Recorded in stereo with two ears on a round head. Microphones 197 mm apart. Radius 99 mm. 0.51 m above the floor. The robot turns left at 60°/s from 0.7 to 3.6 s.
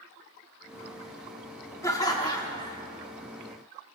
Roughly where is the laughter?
Centre.